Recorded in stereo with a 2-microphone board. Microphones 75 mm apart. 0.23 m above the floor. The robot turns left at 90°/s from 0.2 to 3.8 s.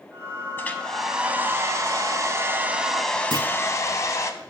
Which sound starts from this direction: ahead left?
A hair dryer, at 0.6 s.